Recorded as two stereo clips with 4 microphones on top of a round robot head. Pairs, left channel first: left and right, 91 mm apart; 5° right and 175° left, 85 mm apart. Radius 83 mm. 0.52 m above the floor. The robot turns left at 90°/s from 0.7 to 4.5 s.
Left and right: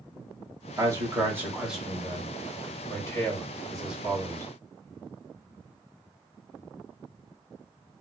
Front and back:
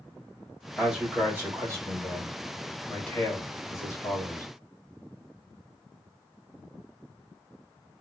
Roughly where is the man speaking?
Right.